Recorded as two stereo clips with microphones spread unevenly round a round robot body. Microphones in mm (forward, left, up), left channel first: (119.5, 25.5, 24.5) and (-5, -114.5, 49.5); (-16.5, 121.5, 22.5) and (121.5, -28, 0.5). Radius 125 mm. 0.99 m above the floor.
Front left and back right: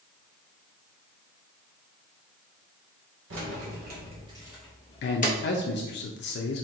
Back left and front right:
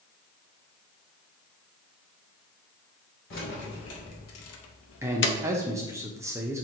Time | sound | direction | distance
3.3 | keys jangling | 170° right | 1.1 m
5.0 | a man speaking | 30° left | 0.6 m